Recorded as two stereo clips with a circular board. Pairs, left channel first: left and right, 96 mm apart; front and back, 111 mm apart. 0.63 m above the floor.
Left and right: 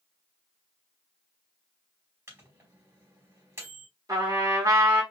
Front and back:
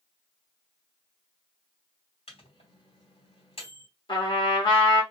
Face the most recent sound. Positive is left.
turn(degrees=-40)